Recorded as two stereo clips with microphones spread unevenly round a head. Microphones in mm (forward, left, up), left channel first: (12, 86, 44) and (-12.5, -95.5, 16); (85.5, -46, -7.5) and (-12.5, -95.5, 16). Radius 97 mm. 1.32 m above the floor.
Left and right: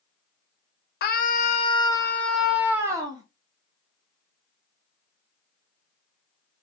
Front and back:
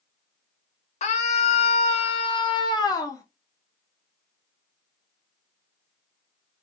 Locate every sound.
1.0 s a scream: 40° left, 0.9 m; by 3.2 s 30° right, 1.1 m